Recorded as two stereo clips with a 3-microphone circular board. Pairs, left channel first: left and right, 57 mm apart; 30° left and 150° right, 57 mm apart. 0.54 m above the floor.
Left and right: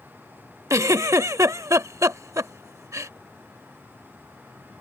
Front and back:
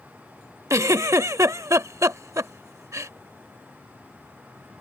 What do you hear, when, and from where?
0.7 s a giggle: 120° right